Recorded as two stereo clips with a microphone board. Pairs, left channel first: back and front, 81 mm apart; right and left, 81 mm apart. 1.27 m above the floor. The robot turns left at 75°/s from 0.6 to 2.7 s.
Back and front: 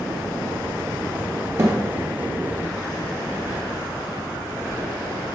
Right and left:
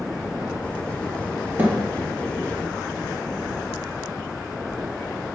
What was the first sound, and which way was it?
A thud, 35° left.